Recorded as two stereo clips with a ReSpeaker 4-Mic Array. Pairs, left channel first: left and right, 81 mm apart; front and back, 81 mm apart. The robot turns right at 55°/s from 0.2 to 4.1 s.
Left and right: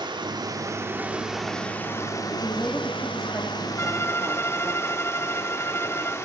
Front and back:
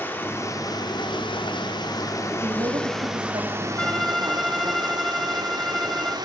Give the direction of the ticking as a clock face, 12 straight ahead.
I don't hear ticking.